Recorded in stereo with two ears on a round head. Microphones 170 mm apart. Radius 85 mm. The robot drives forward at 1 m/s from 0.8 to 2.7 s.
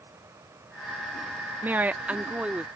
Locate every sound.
1.6 s a woman speaking: 10° right (ahead or behind); by 2.7 s 5° right (ahead or behind)